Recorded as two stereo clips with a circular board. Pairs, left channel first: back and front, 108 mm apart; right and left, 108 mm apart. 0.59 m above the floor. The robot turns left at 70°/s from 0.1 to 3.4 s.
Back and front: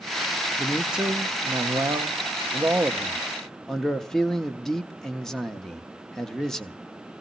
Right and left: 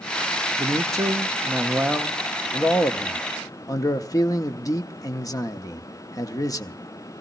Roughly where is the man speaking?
Left.